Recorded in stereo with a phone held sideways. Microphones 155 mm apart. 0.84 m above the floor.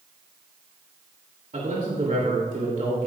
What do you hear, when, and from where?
1.5 s a man speaking: 55° right (ahead or behind), 3 m